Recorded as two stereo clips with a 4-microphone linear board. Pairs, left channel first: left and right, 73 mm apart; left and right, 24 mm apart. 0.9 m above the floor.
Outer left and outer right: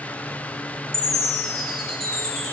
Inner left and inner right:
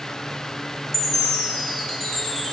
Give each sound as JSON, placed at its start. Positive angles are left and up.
{"t": 0.9, "sound": "a chime", "side_deg": 10, "distance_m": 1.1}